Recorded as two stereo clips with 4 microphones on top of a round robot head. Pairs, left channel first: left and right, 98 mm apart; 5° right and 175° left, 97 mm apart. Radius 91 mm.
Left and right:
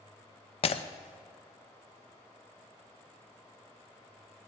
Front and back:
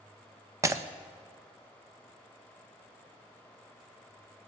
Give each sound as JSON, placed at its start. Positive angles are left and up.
{"t": 0.6, "sound": "breaking glass", "azimuth_deg": 115, "distance_m": 0.6}